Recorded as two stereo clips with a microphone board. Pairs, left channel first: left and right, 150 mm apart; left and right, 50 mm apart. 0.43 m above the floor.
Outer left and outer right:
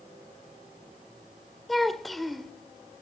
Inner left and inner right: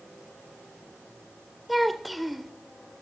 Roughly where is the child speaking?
Centre.